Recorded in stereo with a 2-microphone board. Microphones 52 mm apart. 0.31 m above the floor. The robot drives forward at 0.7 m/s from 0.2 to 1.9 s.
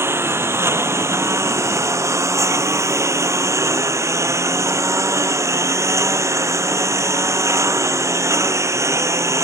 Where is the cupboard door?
I don't hear a cupboard door.